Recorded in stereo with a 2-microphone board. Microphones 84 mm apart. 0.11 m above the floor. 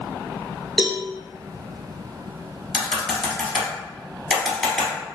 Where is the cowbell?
Centre (ahead or behind), 0.6 m.